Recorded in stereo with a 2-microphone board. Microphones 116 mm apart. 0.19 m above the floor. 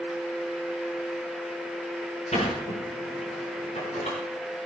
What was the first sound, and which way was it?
A sliding door, 75° left (ahead or behind).